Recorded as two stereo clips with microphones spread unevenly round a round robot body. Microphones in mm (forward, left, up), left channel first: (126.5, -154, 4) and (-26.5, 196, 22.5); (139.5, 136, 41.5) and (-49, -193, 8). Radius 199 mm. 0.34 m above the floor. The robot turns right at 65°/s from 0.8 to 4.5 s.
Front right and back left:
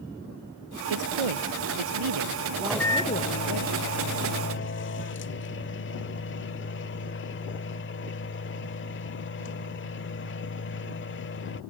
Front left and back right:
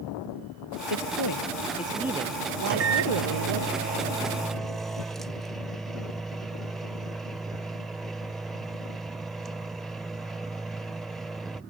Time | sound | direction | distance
0.9 | a man speaking | 80° left | ?
2.6 | a microwave | 155° right | ?